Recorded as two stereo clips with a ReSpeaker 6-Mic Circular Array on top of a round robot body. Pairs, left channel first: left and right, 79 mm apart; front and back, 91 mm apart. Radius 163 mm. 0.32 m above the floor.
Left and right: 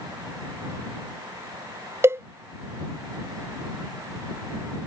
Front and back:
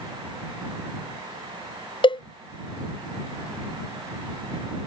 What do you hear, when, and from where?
2.0 s a cowbell: 30° right